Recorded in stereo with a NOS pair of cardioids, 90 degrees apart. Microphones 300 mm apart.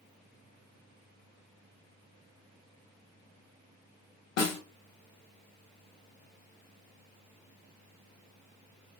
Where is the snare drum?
60° left, 0.9 m.